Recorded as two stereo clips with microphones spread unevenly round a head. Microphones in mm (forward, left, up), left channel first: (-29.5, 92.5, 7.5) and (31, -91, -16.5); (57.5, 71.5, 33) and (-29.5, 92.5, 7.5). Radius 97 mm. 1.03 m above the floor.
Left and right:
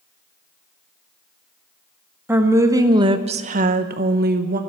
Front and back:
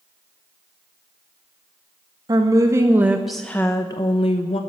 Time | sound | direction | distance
2.3 | a woman speaking | 150° right | 1.4 m